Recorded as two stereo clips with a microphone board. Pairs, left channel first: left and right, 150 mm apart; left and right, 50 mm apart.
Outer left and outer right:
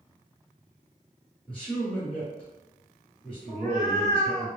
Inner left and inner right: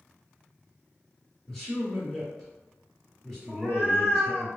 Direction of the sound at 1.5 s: 5° left (ahead or behind).